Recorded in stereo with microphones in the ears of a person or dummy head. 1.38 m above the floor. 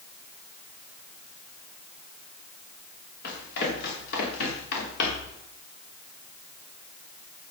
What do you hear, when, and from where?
3.2 s running footsteps: 55° left (ahead or behind), 9 m; by 5.4 s 60° left (ahead or behind), 7 m